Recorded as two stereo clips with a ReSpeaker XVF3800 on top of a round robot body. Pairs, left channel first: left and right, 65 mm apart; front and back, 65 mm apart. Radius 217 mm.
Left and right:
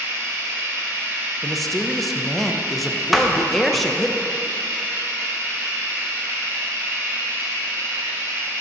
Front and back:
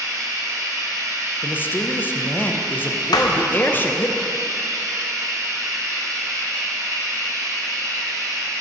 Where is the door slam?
Straight ahead, 0.6 m.